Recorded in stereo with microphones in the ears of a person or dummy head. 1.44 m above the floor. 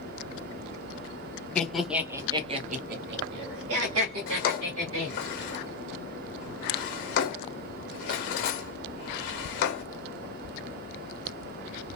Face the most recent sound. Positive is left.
turn(degrees=45)  # may be behind; listen again after turning